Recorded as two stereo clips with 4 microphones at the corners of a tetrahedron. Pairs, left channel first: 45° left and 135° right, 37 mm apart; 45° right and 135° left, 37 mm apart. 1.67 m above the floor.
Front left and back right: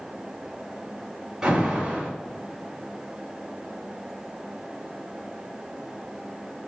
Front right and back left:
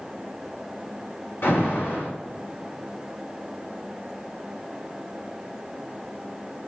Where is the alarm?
60° right, 4 m.